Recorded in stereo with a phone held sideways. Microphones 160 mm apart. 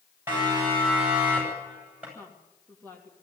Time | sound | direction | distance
0.3 | a siren | 15° right (ahead or behind) | 9.5 m
2.1 | a woman speaking | 10° left (ahead or behind) | 3 m